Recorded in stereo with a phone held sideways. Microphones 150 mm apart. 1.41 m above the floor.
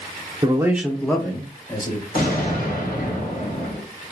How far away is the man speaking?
About 0.8 m.